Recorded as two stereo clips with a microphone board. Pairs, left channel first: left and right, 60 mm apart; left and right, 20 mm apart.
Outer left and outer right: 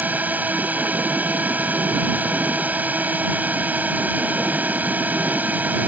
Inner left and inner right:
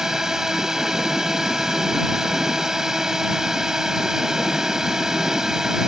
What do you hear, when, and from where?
0.0 s a drone: 30° right (ahead or behind)